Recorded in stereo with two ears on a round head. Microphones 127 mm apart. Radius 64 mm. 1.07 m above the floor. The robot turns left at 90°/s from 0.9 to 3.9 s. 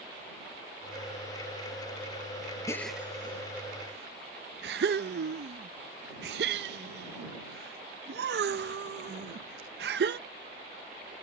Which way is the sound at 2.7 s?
20° left (ahead or behind).